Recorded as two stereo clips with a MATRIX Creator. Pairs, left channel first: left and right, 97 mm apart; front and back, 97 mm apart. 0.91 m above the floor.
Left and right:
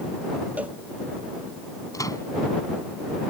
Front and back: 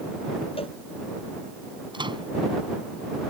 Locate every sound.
0.6 s a cowbell: 15° right
1.9 s a microwave: 145° left